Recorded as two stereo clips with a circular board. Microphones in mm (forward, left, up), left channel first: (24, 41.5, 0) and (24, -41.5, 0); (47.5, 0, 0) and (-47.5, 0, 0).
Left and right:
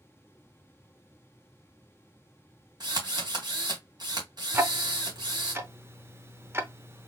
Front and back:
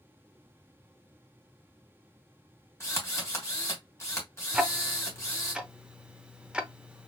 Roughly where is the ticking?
Right.